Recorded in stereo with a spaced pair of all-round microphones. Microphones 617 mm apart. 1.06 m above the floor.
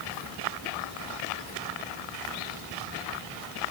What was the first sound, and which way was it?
Only background noise.